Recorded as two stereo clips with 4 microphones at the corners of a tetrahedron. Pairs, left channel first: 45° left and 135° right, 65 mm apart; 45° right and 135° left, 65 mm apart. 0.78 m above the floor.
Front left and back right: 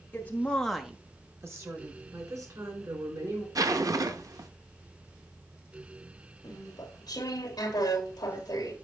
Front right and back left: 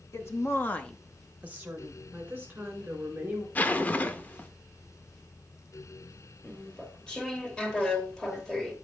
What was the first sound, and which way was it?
A woman speaking, 15° right.